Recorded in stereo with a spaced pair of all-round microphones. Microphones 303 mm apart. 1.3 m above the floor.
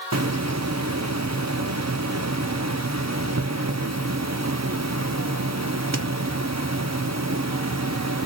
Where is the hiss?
60° right (ahead or behind), 0.8 m.